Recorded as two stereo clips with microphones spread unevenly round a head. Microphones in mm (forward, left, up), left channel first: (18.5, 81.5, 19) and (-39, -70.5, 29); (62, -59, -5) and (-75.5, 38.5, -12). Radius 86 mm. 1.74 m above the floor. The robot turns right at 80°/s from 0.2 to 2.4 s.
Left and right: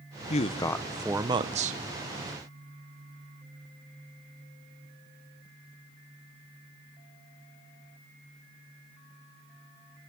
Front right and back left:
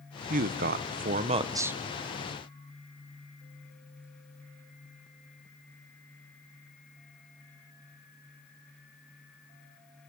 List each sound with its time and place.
0.3 s a man speaking: 110° left, 0.8 m; by 1.8 s 130° right, 0.8 m